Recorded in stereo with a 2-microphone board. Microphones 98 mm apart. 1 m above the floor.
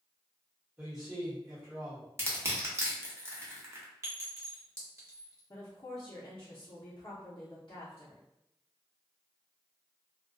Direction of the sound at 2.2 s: 25° right (ahead or behind).